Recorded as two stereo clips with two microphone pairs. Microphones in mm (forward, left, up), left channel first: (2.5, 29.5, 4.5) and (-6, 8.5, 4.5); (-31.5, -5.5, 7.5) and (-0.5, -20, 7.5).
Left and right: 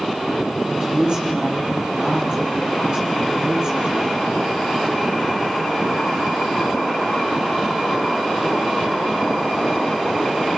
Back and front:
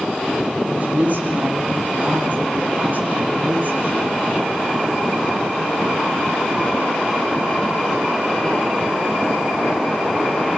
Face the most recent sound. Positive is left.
turn(degrees=-65)